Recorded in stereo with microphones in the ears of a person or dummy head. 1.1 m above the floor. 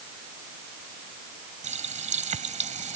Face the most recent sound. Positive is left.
turn(degrees=-35)  # may be behind; listen again after turning